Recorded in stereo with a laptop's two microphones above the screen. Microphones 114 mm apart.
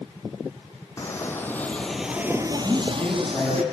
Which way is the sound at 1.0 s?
25° left (ahead or behind).